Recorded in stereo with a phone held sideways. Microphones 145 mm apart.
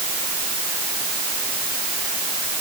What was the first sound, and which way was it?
Only background noise.